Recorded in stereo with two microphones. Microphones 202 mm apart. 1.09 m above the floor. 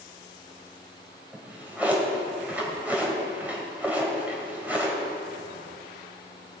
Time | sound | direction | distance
1.3 | a drawer | 10° right (ahead or behind) | 2 m